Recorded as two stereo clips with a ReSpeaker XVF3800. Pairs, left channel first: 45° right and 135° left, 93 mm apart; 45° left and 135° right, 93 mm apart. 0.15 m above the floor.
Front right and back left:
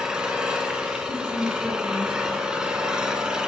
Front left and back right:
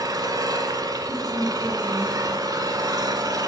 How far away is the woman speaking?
About 4.5 m.